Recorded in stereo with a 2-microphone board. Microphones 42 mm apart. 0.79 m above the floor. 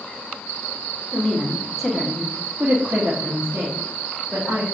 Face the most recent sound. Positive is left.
turn(degrees=-55)  # may be behind; listen again after turning